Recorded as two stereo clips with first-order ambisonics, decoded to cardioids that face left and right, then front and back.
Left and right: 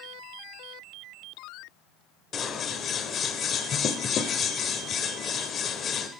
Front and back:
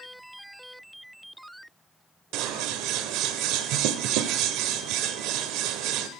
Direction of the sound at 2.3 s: 155° left.